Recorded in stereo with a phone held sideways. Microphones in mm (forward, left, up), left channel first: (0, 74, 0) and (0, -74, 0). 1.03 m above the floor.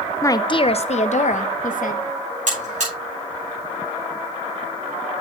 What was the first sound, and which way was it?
A woman speaking, 20° left (ahead or behind).